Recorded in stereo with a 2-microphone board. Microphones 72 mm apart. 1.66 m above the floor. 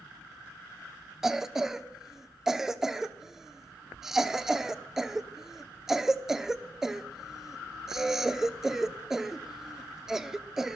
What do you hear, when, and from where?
1.2 s a cough: 5° right (ahead or behind), 0.9 m